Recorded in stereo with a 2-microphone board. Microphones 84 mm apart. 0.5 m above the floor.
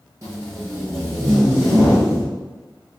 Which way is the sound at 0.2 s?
35° right (ahead or behind).